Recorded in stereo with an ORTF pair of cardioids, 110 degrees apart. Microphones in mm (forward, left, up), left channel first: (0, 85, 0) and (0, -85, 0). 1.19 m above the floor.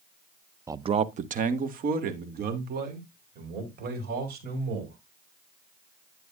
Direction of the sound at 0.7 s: 15° right.